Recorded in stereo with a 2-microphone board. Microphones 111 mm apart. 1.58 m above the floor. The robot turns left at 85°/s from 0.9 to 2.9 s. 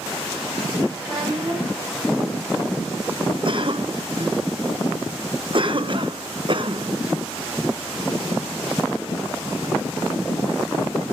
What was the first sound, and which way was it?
A child speaking, 25° right.